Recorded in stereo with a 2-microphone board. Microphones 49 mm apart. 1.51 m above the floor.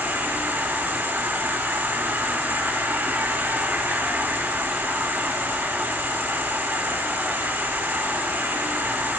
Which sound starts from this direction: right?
An insect, at 0.0 s.